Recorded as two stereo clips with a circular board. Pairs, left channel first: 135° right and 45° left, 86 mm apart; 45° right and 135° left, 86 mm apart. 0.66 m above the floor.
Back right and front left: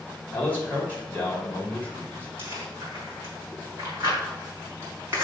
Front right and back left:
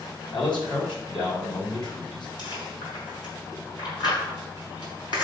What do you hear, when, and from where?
0.3 s a man speaking: 70° right, 3 m
2.4 s chewing: 15° right, 4.5 m